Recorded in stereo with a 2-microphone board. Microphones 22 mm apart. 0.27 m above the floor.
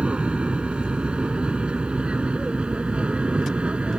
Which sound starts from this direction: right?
An aircraft, at 0.0 s.